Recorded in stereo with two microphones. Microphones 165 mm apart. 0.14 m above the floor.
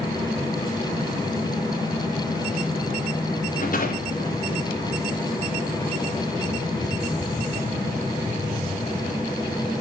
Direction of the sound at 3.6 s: 60° left (ahead or behind).